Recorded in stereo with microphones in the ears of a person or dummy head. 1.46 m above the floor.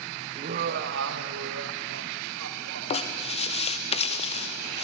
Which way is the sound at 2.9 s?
30° left (ahead or behind).